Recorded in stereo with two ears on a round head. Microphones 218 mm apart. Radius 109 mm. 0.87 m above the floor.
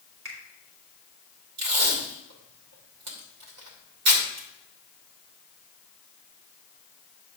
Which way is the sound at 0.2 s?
55° right (ahead or behind).